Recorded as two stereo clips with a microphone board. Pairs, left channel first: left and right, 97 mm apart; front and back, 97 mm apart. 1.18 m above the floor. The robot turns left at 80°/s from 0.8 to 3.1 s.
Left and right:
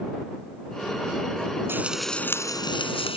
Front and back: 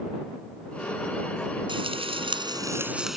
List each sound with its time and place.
1.7 s frying: 155° right; by 3.2 s 95° left